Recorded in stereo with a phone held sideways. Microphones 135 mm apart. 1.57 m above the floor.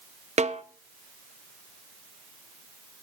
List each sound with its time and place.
0.4 s a snare drum: 55° right (ahead or behind), 0.7 m